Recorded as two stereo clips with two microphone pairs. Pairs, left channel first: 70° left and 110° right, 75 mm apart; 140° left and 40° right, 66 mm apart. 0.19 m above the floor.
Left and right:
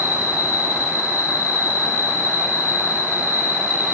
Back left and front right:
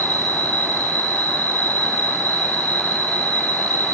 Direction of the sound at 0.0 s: 165° right.